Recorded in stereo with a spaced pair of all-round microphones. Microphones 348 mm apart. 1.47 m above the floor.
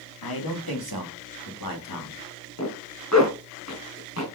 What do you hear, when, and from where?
0.2 s a man speaking: 85° left, 2.5 m; by 2.2 s 65° left (ahead or behind), 3 m
2.6 s a zipper: 50° left (ahead or behind), 3 m